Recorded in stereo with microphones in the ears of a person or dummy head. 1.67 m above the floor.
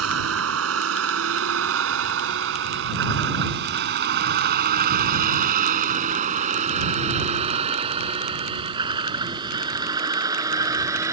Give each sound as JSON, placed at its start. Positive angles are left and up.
{"t": 0.0, "sound": "a vehicle", "side_deg": -85}